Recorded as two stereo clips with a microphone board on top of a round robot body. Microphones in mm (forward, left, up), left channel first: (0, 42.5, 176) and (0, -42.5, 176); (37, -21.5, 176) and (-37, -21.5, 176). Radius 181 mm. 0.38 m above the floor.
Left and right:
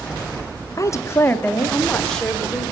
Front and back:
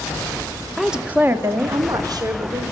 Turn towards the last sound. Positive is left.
turn(degrees=180)